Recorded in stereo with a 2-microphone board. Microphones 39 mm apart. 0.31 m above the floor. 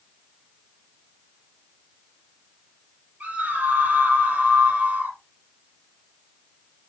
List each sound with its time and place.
3.2 s a scream: 40° right (ahead or behind), 8 m